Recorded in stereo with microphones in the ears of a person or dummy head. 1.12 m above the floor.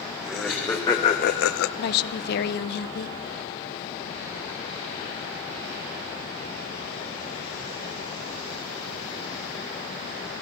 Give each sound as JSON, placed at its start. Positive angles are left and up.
{"t": 0.2, "sound": "laughter", "side_deg": 0, "distance_m": 1.4}
{"t": 1.8, "sound": "a woman speaking", "side_deg": 55, "distance_m": 0.8}